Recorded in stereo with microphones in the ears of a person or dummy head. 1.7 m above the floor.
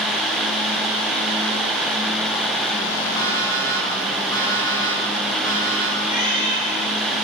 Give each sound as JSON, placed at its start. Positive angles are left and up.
{"t": 3.2, "sound": "an alarm clock", "side_deg": 15, "distance_m": 6.5}
{"t": 6.0, "sound": "a cat meowing", "side_deg": 45, "distance_m": 7.5}